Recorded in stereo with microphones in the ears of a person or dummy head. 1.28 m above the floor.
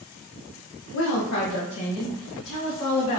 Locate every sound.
0.9 s a woman speaking: 65° left (ahead or behind), 0.6 m; by 3.2 s 70° left (ahead or behind), 1.8 m